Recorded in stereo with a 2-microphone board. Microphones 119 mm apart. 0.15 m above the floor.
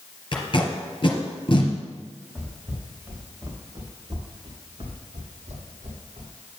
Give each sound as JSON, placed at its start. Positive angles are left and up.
{"t": 0.3, "sound": "tape being pulled", "side_deg": 45, "distance_m": 1.6}
{"t": 2.4, "sound": "footsteps", "side_deg": 0, "distance_m": 3.0}